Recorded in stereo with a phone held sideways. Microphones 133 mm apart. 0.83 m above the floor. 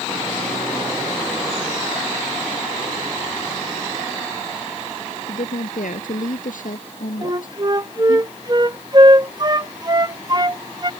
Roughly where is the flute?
Right.